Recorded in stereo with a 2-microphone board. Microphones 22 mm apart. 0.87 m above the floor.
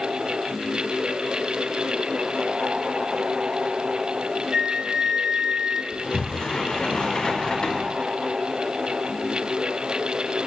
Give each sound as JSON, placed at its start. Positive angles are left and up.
{"t": 4.5, "sound": "a flute", "side_deg": -70, "distance_m": 0.8}
{"t": 5.9, "sound": "a sliding door", "side_deg": 35, "distance_m": 1.2}